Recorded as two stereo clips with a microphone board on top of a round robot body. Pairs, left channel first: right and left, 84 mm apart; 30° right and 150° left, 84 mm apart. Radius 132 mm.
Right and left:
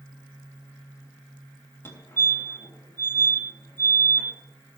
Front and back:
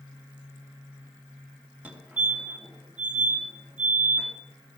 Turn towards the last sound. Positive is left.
turn(degrees=-145)